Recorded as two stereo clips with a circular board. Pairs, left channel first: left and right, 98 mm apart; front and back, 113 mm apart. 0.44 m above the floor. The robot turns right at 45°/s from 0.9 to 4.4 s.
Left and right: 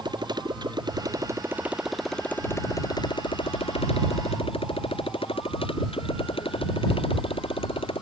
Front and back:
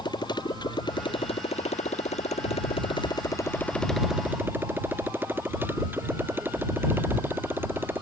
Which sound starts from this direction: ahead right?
A motorcycle, at 0.0 s.